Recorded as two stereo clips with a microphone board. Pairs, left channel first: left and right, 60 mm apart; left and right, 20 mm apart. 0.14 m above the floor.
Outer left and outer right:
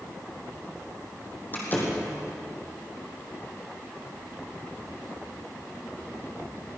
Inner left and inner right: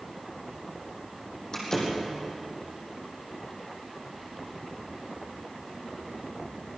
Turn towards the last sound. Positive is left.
turn(degrees=30)  # may be behind; listen again after turning